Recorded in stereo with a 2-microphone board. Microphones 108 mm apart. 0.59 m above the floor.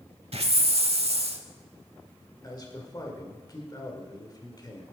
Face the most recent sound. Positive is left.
turn(degrees=35)  # may be behind; listen again after turning